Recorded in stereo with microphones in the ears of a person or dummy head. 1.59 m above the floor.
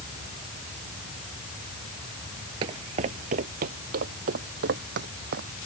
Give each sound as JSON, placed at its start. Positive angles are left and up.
{"t": 2.6, "sound": "footsteps", "side_deg": -25}